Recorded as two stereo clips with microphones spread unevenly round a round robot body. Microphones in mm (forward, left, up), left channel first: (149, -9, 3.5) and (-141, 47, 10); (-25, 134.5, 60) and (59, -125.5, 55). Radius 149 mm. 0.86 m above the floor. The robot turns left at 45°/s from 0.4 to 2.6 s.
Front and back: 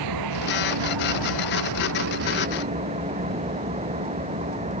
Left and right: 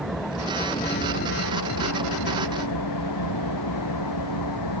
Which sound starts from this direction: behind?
An engine running, at 0.0 s.